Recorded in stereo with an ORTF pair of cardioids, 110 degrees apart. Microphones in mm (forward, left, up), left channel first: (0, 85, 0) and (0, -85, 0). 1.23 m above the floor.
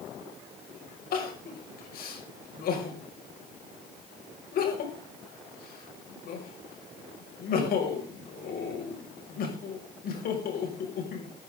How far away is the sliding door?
I don't hear a sliding door.